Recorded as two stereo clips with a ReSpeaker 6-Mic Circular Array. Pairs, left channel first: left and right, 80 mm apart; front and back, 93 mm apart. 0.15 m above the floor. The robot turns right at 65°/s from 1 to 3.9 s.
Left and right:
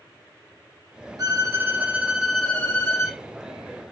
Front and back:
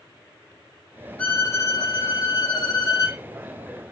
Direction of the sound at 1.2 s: 70° right.